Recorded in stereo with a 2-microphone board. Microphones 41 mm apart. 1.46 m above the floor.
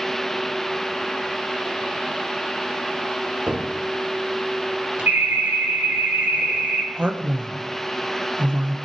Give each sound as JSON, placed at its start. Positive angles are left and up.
{"t": 3.5, "sound": "a cupboard door", "side_deg": -30, "distance_m": 1.8}
{"t": 5.1, "sound": "an alarm", "side_deg": -60, "distance_m": 6.0}
{"t": 6.9, "sound": "a man speaking", "side_deg": -30, "distance_m": 1.2}